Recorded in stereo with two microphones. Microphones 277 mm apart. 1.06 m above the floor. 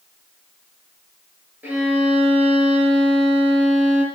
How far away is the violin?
About 6 m.